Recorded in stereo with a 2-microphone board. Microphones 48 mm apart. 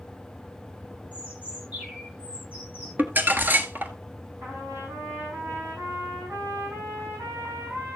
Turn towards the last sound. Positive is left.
turn(degrees=-75)  # may be behind; listen again after turning